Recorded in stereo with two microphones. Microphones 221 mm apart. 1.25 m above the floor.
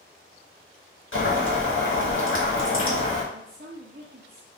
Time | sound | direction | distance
1.1 | boiling | 65° left (ahead or behind) | 1.4 m
3.3 | a woman speaking | 45° right (ahead or behind) | 0.7 m